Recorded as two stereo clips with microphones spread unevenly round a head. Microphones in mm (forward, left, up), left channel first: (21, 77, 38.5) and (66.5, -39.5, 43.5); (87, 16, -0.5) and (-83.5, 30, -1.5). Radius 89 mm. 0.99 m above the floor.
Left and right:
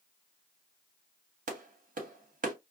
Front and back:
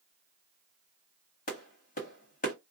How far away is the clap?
About 1.2 m.